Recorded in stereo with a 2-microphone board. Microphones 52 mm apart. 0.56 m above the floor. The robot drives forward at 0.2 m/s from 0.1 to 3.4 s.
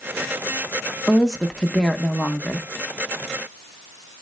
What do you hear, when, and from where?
1.1 s a woman speaking: 5° left (ahead or behind), 0.7 m